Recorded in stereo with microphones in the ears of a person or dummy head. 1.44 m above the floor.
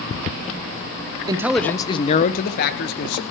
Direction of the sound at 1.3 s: 15° right (ahead or behind).